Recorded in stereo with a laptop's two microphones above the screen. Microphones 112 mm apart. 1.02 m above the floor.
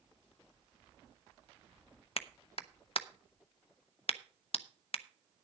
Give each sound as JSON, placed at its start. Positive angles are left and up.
{"t": 2.2, "sound": "a clap", "side_deg": 55, "distance_m": 0.7}